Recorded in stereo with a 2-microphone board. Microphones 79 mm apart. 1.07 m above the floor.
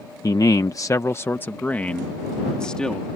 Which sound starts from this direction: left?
A man speaking, at 0.2 s.